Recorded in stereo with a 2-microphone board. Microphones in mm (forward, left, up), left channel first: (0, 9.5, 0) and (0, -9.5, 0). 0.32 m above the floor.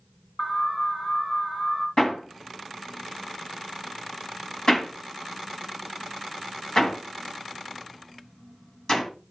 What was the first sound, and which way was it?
An alarm, 50° left (ahead or behind).